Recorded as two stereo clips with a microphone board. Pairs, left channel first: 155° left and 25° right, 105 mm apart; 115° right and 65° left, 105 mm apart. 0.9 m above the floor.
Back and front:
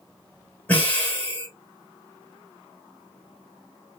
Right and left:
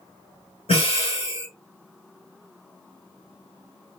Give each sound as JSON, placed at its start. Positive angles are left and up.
{"t": 0.7, "sound": "breathing", "azimuth_deg": -130, "distance_m": 1.7}